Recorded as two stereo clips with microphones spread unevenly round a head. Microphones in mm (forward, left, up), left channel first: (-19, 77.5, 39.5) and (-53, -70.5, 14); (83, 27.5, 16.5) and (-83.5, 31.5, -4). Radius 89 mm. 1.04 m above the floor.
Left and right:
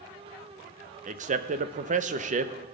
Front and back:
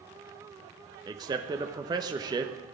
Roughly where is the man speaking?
Behind right.